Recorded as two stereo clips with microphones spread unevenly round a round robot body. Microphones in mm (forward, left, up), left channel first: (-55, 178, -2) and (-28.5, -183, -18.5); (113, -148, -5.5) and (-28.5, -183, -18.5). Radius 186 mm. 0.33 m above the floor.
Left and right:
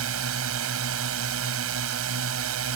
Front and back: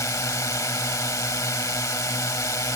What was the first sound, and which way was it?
A drone, 50° right.